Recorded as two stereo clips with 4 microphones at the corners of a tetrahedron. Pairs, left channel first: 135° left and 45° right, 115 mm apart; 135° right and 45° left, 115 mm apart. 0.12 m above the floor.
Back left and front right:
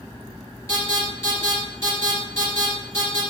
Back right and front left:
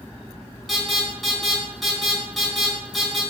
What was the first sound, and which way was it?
An alarm, 135° left.